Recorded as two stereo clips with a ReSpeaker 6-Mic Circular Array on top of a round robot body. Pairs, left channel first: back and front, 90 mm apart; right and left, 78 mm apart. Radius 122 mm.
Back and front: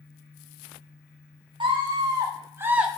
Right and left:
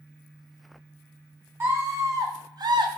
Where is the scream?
35° left, 3 m; by 2.9 s 80° left, 1.3 m.